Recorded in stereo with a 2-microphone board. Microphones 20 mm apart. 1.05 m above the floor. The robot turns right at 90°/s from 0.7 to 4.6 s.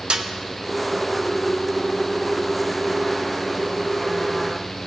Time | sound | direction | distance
0.1 | a snare drum | 50° right (ahead or behind) | 0.6 m